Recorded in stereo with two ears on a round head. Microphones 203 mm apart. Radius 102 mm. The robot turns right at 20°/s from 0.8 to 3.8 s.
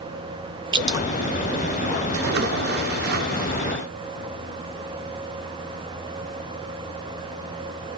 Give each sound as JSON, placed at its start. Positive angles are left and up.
{"t": 0.7, "sound": "dripping", "side_deg": -20, "distance_m": 0.5}
{"t": 2.1, "sound": "a splash", "azimuth_deg": -90, "distance_m": 0.7}